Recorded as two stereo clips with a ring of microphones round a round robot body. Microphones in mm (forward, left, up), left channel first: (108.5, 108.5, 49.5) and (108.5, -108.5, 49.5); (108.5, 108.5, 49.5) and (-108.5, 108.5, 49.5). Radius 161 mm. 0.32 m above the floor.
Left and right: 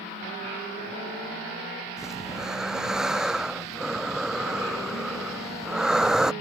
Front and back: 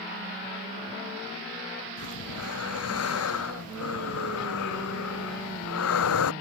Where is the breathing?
Straight ahead.